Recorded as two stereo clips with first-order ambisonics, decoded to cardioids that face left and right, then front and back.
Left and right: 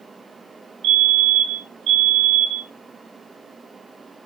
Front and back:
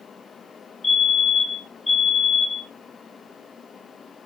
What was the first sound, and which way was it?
A fire alarm, 70° right.